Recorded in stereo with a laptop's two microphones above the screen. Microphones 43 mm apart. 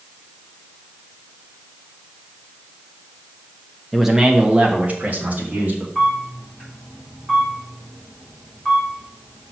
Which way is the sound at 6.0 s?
5° left (ahead or behind).